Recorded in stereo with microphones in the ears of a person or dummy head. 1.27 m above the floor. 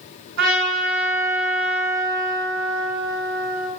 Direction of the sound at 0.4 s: 60° right (ahead or behind).